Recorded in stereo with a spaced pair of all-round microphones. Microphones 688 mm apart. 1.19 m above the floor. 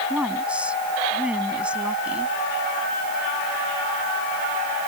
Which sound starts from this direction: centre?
A woman speaking, at 0.1 s.